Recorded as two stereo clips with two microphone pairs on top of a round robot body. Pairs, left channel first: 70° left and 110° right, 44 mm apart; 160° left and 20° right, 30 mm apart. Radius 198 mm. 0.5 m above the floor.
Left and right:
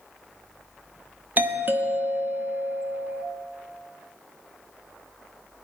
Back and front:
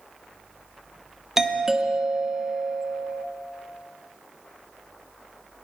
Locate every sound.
1.4 s a doorbell: 95° right, 1.3 m